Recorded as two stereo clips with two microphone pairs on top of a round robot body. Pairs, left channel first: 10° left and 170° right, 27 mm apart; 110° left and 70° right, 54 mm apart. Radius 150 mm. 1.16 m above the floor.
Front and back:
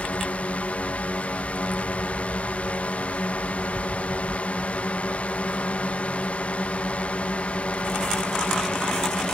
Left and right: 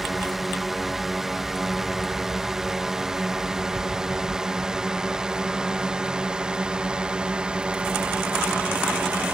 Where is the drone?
15° left; by 9.3 s 10° right.